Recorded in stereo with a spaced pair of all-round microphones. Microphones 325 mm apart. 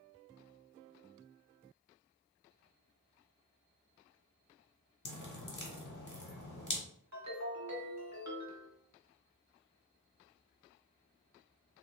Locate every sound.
5.0 s dripping: 65° left (ahead or behind), 1.0 m
7.1 s a ringtone: 55° right (ahead or behind), 1.0 m